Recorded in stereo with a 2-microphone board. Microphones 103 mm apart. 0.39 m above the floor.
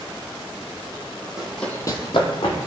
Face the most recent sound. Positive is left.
turn(degrees=45)  # may be behind; listen again after turning